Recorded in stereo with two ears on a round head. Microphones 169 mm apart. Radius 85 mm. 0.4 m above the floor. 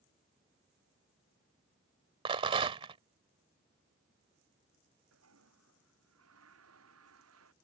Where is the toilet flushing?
90° right.